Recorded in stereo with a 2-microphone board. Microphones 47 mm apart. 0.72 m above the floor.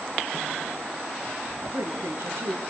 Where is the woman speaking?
65° right (ahead or behind), 9.5 m.